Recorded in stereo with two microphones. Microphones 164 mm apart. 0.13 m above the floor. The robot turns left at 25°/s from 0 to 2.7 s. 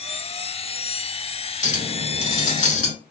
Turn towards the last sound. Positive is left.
turn(degrees=45)  # may be behind; listen again after turning